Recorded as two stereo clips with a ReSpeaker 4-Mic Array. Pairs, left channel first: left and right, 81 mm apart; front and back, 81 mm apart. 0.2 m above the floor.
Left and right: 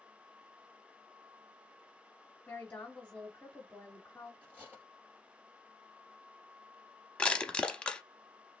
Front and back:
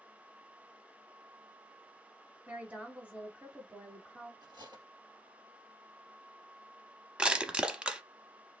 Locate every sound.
2.5 s a woman speaking: 140° left, 1.0 m
4.4 s cutlery clinking: 160° right, 2 m
7.2 s crushing: 130° left, 0.6 m